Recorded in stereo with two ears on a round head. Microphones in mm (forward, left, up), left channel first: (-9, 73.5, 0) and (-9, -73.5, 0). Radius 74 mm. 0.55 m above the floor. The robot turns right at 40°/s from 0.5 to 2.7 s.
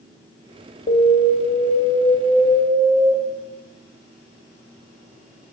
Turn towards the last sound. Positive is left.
turn(degrees=-165)